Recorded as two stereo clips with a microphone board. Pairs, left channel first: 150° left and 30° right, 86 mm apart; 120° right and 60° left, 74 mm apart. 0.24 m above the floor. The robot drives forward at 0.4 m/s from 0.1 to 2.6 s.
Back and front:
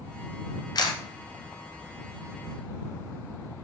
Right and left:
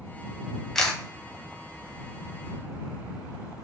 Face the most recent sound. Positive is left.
turn(degrees=170)